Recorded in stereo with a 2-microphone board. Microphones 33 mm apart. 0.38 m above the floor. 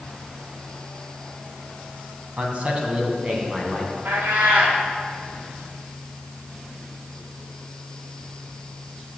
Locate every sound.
2.4 s a man speaking: 40° right (ahead or behind), 2.5 m; by 3.9 s 20° right (ahead or behind), 3 m
4.0 s a cat meowing: 80° right, 3 m